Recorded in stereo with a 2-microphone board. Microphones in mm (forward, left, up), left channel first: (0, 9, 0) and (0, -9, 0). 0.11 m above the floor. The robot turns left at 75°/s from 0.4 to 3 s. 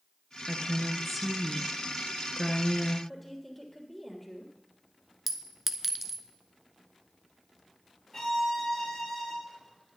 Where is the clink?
10° right (ahead or behind), 0.8 m.